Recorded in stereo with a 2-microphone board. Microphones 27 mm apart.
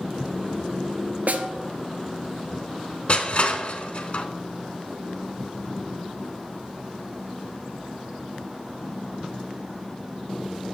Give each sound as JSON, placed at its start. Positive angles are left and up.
{"t": 1.3, "sound": "a snare drum", "side_deg": -70, "distance_m": 0.7}
{"t": 3.1, "sound": "crushing", "side_deg": 45, "distance_m": 0.7}